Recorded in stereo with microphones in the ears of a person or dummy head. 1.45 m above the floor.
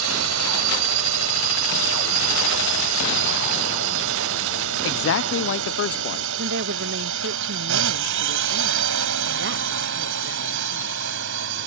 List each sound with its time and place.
0.0 s a drone: 80° right; by 11.7 s 65° right (ahead or behind)
4.8 s a man speaking: 65° left (ahead or behind)
6.4 s a woman speaking: 60° right (ahead or behind)